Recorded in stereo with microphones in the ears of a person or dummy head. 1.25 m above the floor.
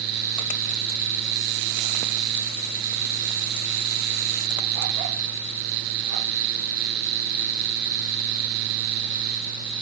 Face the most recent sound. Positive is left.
No sound to turn to.